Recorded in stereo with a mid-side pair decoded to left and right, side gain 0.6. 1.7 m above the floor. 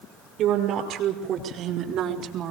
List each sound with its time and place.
0.4 s a woman speaking: 60° right, 6 m; by 2.5 s 65° right, 3.5 m